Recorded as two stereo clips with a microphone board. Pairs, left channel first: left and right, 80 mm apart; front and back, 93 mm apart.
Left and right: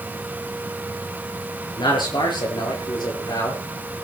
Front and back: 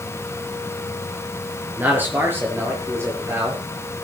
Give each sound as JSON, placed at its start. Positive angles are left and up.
{"t": 1.8, "sound": "a man speaking", "azimuth_deg": 110, "distance_m": 6.0}